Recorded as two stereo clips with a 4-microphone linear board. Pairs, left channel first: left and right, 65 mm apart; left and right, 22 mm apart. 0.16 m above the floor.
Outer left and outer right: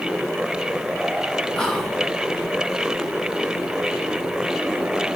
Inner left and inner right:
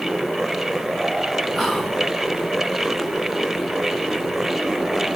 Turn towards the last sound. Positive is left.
turn(degrees=10)  # may be behind; listen again after turning